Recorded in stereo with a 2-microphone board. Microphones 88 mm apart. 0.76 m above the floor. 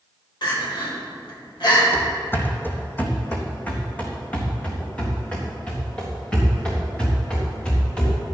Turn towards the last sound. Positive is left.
turn(degrees=10)  # may be behind; listen again after turning